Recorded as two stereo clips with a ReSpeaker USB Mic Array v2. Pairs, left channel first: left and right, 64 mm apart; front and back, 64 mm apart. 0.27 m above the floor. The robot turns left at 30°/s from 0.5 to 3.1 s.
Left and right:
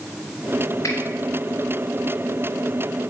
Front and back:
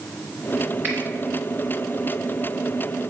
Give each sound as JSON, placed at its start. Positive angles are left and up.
{"t": 0.8, "sound": "a finger snap", "azimuth_deg": 125, "distance_m": 2.5}